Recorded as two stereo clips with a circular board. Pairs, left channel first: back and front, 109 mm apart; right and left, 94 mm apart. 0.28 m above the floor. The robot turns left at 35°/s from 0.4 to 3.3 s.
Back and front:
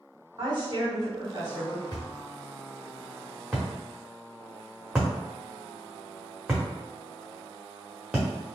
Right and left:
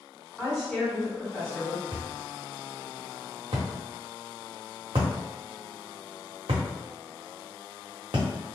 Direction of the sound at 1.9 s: 135° left.